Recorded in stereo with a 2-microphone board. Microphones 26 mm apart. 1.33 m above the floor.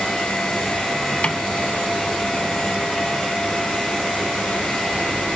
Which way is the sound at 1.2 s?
45° left (ahead or behind).